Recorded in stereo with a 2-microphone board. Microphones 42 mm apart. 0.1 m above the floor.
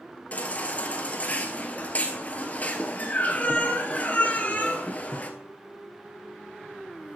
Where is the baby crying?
35° left (ahead or behind), 1.1 m.